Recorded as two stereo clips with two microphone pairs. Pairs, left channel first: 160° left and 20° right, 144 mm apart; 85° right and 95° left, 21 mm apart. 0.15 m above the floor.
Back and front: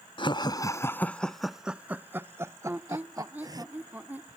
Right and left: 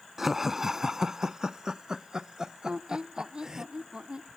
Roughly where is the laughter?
Behind.